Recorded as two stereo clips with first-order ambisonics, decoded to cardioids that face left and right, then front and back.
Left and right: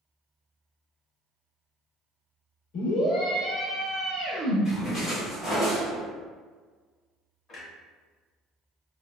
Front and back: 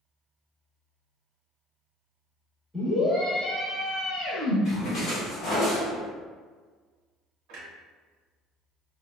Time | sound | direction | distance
2.7 | a scream | 90° left | 1.0 m
4.7 | a splash | 35° left | 1.2 m
7.5 | a clunk | 155° left | 0.8 m